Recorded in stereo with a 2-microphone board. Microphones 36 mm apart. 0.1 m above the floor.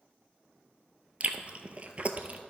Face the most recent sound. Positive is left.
turn(degrees=-40)  # may be behind; listen again after turning